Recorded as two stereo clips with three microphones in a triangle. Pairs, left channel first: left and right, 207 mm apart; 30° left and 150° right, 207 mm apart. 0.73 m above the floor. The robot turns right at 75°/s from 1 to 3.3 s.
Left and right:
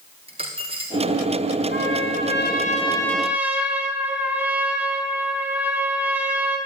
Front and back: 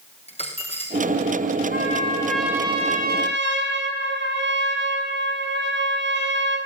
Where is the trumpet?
70° left, 5 m; by 6.6 s 170° right, 5 m.